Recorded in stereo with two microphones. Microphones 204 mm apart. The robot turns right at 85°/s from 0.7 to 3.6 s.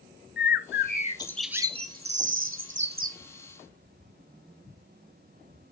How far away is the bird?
About 0.6 m.